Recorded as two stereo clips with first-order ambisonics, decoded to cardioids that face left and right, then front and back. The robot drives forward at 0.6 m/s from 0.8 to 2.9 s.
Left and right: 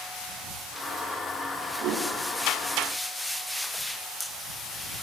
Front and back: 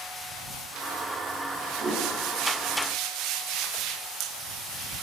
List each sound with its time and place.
1.8 s a whoosh: 130° right, 6 m